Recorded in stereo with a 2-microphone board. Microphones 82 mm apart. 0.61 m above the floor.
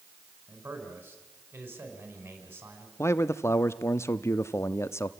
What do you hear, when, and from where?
0.5 s a man speaking: 30° right (ahead or behind), 5 m
3.0 s a man speaking: 35° left (ahead or behind), 0.7 m